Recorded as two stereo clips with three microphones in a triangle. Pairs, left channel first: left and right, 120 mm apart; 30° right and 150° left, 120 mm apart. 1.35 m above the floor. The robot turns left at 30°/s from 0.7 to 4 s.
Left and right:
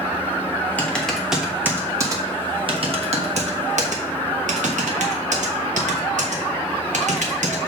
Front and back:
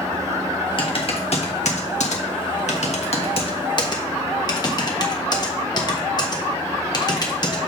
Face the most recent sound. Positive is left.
turn(degrees=-85)